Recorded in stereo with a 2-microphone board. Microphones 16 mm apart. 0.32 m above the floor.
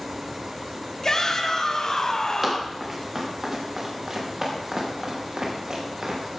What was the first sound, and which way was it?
A shout, 45° left (ahead or behind).